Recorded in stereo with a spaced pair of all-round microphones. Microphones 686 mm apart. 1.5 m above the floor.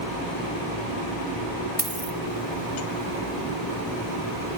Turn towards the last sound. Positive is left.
turn(degrees=-30)  # may be behind; listen again after turning